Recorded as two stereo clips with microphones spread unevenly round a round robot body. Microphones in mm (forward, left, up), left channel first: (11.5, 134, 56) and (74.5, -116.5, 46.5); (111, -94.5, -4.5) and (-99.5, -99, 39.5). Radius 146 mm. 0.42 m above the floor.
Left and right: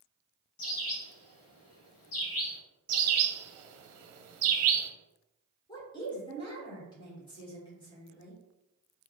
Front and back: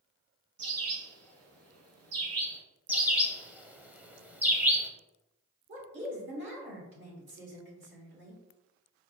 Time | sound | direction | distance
0.6 | a bird | 150° left | 0.8 m
2.9 | a bird | 90° right | 0.8 m
5.7 | a woman speaking | 170° left | 1.5 m